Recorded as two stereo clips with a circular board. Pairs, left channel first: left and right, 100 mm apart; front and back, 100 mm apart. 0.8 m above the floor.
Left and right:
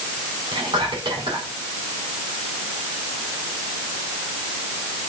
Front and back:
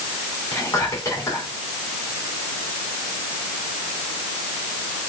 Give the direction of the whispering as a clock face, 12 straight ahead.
2 o'clock.